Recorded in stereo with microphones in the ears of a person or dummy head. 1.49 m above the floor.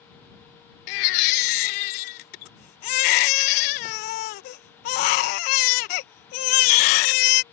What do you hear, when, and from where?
0.9 s a baby crying: 45° left (ahead or behind)